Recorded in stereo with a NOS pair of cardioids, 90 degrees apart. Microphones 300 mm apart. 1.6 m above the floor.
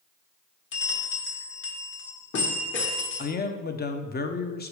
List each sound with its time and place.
0.7 s a bell: 40° left, 1.4 m
3.2 s a man speaking: 35° left, 0.9 m